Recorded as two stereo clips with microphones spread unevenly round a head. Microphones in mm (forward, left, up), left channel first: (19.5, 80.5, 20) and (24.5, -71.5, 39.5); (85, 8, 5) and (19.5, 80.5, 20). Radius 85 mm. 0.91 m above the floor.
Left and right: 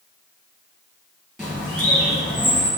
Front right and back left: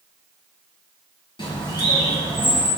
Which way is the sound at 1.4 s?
5° right.